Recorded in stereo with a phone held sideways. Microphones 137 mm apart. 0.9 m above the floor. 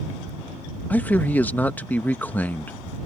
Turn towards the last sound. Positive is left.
turn(degrees=10)  # may be behind; listen again after turning